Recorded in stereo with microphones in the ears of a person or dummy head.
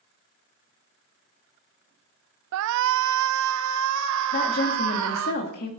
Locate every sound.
2.5 s a shout: 65° right (ahead or behind), 0.7 m; by 5.3 s 75° right (ahead or behind), 2.5 m
4.3 s a woman speaking: 50° left (ahead or behind), 2 m